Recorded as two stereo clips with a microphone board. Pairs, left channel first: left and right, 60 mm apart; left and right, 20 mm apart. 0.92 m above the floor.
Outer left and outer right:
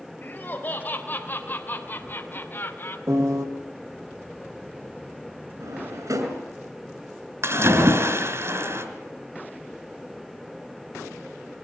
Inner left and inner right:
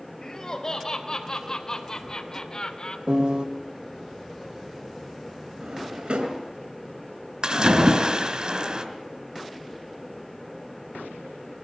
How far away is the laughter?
About 4.5 m.